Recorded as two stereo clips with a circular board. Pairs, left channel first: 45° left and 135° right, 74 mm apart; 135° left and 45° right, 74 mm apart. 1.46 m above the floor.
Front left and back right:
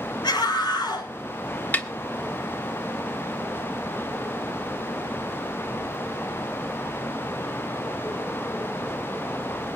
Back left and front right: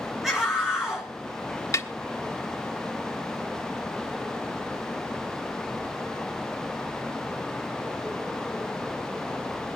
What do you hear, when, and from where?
0.2 s a scream: 40° left, 7 m
1.7 s a snare drum: 105° left, 1.4 m